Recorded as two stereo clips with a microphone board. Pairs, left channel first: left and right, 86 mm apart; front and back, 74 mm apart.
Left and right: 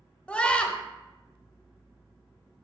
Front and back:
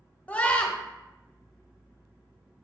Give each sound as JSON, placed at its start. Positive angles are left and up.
{"t": 0.3, "sound": "a scream", "azimuth_deg": 40, "distance_m": 0.9}